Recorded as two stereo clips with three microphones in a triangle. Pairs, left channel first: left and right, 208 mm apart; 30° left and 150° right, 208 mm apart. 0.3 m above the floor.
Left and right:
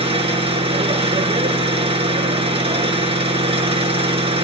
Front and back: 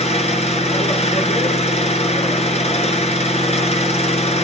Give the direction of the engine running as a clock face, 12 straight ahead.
1 o'clock.